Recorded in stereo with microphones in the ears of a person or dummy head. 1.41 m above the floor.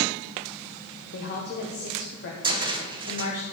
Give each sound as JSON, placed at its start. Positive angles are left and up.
{"t": 1.1, "sound": "a woman speaking", "side_deg": 55, "distance_m": 1.2}
{"t": 2.4, "sound": "a cupboard door", "side_deg": -25, "distance_m": 0.9}